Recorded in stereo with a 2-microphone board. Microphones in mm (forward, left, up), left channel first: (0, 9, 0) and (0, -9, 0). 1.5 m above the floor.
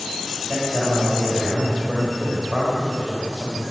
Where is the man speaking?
10° right (ahead or behind), 8 m; by 3.6 s 30° right (ahead or behind), 8 m.